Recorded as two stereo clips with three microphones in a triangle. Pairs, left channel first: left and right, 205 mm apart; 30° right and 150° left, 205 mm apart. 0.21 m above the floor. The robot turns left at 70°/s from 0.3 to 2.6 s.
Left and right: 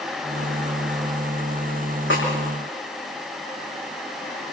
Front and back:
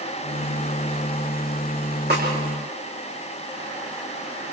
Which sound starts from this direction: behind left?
A snare drum, at 2.1 s.